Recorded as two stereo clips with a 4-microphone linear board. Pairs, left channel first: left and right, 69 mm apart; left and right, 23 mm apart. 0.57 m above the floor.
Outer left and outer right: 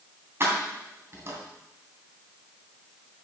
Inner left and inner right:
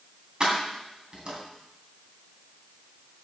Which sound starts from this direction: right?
Keys jangling, at 0.4 s.